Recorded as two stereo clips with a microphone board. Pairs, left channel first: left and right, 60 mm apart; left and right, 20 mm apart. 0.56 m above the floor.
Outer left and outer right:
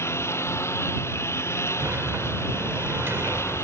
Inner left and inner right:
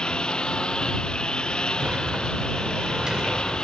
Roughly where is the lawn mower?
Left.